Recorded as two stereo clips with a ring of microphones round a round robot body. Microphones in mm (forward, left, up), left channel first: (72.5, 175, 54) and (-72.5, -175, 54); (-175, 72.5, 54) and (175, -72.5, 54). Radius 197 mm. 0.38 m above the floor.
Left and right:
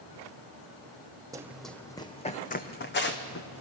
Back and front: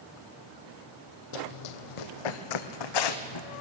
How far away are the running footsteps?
About 0.9 m.